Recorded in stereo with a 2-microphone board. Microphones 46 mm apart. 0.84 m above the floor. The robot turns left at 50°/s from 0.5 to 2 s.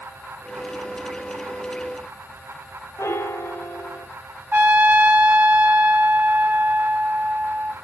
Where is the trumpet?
35° right (ahead or behind), 0.8 m.